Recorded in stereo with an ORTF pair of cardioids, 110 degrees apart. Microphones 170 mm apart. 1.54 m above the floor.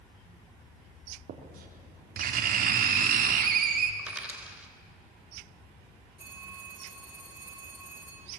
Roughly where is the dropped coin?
Ahead.